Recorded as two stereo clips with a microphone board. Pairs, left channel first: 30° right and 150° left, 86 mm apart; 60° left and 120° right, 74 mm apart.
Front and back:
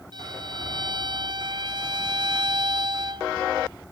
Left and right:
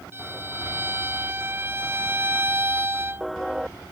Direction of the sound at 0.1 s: Straight behind.